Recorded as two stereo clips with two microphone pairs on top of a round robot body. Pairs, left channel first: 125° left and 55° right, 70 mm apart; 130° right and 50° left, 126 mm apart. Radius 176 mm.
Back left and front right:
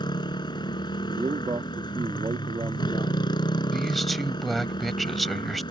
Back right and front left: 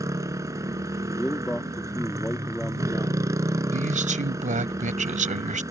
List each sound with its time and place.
0.0 s a motorcycle: 120° left
1.1 s a man speaking: 45° right
3.7 s a man speaking: 35° left